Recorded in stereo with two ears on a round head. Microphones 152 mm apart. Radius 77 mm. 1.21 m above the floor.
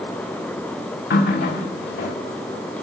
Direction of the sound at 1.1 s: 65° left (ahead or behind).